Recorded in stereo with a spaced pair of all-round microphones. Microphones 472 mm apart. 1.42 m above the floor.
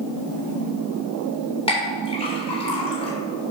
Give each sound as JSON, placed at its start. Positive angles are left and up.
{"t": 1.7, "sound": "a clink", "side_deg": 10, "distance_m": 3.0}